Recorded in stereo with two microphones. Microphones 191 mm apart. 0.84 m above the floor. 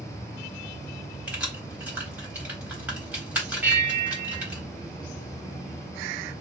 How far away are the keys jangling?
About 1.3 m.